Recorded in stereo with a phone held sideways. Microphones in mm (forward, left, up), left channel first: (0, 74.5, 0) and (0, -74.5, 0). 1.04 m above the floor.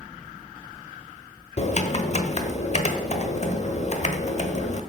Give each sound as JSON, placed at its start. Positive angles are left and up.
{"t": 1.6, "sound": "typing on a keyboard", "side_deg": 50, "distance_m": 1.1}